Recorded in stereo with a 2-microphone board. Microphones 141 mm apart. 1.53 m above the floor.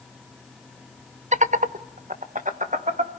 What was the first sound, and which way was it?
Laughter, 55° right (ahead or behind).